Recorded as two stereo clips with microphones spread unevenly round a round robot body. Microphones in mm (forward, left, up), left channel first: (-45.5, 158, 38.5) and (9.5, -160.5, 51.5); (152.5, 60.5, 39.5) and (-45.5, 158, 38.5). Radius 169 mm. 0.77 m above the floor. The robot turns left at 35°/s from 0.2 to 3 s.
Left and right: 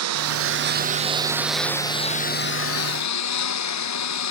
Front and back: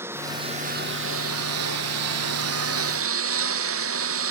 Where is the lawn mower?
125° right; by 4.3 s 140° left.